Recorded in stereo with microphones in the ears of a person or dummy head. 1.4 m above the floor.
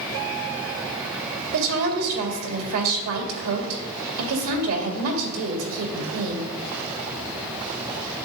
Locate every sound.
1.5 s a woman speaking: 80° right, 2 m